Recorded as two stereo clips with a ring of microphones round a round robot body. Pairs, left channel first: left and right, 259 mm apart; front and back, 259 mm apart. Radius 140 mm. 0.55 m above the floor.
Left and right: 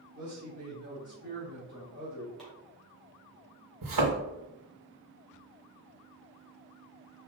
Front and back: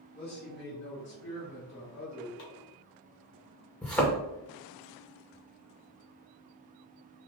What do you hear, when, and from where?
0.1 s a man speaking: 40° right, 1.7 m; by 2.3 s 25° right, 2.5 m
2.4 s chopping: straight ahead, 2 m
3.8 s a thud: 85° right, 2 m